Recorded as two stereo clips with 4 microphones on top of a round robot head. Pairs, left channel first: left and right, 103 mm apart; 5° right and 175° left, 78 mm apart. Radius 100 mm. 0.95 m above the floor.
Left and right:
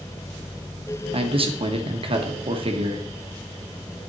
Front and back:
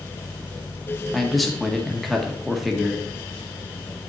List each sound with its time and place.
1.1 s a man speaking: 95° right, 1.7 m